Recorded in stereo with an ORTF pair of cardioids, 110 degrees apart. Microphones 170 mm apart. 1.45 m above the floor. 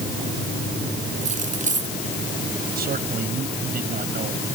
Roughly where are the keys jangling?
Ahead right.